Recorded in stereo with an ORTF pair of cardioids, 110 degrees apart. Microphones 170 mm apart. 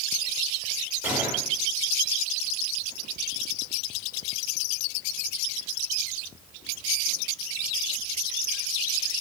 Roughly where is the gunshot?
Ahead.